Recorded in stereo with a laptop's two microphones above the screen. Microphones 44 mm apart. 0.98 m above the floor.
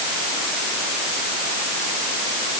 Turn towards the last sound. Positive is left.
No sound to turn to.